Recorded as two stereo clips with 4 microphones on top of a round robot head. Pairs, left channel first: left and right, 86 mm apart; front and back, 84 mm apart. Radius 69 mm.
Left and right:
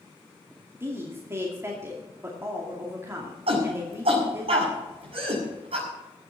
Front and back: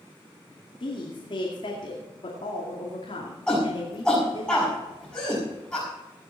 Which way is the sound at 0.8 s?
30° right.